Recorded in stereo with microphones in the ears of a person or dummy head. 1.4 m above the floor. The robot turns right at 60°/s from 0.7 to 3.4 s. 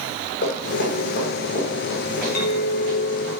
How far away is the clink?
About 1.2 m.